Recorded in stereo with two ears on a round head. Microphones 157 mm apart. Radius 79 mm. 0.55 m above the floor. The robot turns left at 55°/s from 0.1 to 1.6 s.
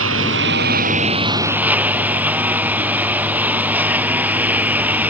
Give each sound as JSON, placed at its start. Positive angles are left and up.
{"t": 0.0, "sound": "a lawn mower", "azimuth_deg": -90}